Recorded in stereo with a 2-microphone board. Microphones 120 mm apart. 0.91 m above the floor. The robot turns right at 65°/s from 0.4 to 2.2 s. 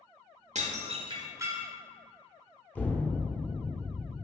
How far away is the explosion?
About 0.6 m.